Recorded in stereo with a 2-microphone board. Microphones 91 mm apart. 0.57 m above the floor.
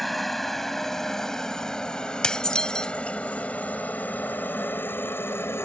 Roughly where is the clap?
I don't hear a clap.